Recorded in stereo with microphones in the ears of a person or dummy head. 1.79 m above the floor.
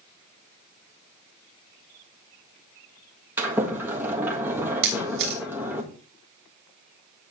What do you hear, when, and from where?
3.4 s a sliding door: 15° right (ahead or behind), 1.7 m
4.8 s a camera shutter: 60° right (ahead or behind), 1.1 m